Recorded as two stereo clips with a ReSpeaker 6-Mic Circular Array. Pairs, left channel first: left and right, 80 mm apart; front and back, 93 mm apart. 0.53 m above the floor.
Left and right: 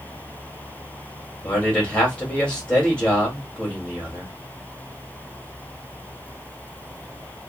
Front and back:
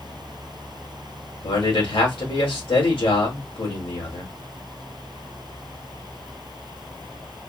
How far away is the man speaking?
About 2 m.